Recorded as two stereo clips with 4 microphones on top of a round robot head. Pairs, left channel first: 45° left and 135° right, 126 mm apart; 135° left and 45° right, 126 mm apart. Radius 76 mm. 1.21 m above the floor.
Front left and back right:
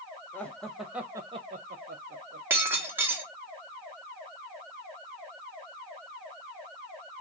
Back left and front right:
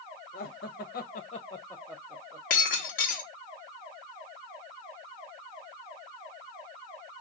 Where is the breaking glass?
150° left, 1.1 m.